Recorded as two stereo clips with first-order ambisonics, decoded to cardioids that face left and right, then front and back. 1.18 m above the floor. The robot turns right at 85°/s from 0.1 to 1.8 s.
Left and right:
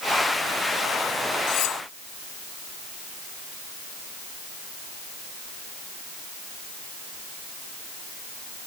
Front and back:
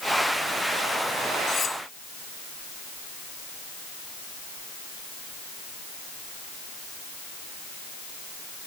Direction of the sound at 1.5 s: 55° left.